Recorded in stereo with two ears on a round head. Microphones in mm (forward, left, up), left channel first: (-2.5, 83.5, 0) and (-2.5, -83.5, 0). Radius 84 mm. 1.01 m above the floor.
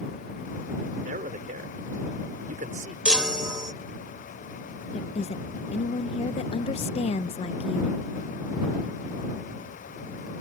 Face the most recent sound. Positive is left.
turn(degrees=35)  # may be behind; listen again after turning